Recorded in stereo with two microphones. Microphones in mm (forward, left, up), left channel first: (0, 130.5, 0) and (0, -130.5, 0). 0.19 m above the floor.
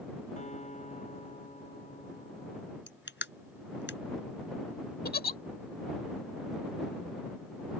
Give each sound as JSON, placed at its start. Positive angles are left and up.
{"t": 0.4, "sound": "a guitar", "side_deg": 25}
{"t": 2.9, "sound": "crushing", "side_deg": 45}
{"t": 5.0, "sound": "a giggle", "side_deg": 35}